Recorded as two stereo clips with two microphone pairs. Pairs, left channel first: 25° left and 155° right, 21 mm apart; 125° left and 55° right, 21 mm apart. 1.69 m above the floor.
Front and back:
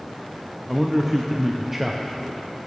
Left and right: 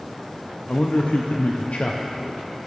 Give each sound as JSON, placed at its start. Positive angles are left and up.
{"t": 0.7, "sound": "a man speaking", "azimuth_deg": 125, "distance_m": 0.6}